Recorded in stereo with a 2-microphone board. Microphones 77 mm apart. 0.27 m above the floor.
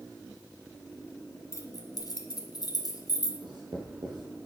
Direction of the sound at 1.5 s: 40° left (ahead or behind).